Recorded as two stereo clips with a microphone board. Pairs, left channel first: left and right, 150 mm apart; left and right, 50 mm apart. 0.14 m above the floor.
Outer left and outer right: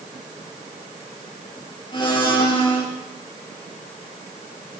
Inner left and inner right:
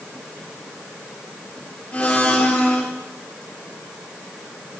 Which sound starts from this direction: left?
A blender, at 1.9 s.